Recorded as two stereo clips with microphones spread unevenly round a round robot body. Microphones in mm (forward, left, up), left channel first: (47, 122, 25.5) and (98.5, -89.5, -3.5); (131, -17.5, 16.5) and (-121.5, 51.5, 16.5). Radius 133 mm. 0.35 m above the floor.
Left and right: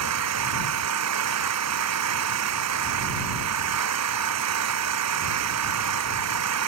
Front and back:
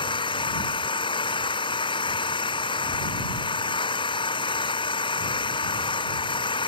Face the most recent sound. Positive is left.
turn(degrees=-90)